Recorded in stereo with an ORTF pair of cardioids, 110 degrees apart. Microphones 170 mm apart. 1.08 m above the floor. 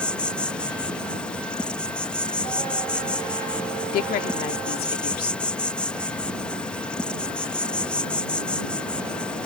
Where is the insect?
5° left.